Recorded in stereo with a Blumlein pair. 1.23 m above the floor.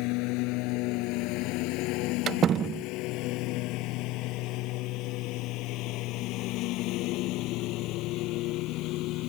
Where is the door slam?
25° right.